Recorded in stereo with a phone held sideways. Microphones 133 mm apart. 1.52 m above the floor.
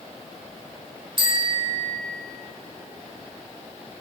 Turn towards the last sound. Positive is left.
turn(degrees=-40)  # may be behind; listen again after turning